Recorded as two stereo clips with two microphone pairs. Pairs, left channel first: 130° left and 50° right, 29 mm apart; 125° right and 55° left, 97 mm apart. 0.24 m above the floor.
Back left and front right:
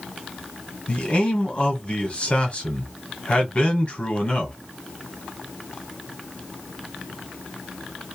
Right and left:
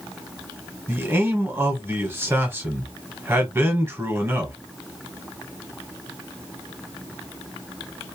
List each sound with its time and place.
0.9 s a man speaking: 115° left, 1.2 m